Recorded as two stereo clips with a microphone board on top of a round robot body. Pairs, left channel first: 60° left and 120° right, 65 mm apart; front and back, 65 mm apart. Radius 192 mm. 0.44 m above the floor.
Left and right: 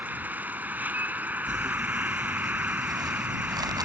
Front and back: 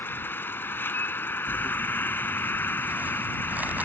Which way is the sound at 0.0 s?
55° right.